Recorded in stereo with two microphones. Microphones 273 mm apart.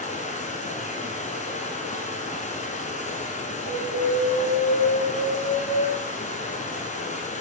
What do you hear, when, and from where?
0.0 s running water: 25° left (ahead or behind), 1.3 m
3.7 s an alarm: 55° right (ahead or behind), 1.7 m